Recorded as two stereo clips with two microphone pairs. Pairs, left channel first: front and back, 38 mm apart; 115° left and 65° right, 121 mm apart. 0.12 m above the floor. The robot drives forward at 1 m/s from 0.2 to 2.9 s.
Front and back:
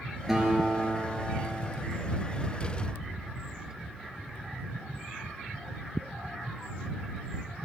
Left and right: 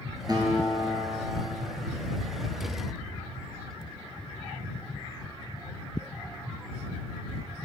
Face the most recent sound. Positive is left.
turn(degrees=-170)